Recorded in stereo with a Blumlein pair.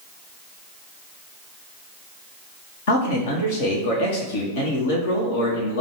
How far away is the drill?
No drill in this recording.